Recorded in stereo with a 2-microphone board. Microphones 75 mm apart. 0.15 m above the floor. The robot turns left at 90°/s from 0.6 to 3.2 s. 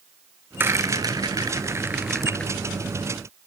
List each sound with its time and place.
0.6 s a rattle: 30° right (ahead or behind), 0.9 m; by 2.5 s 20° left (ahead or behind), 0.9 m